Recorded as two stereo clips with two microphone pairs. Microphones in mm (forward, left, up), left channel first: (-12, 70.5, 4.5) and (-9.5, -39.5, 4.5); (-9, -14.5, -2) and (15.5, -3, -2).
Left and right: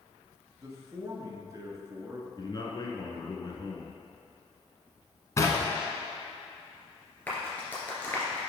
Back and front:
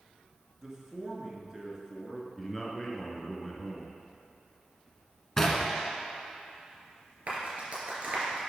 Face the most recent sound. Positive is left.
turn(degrees=20)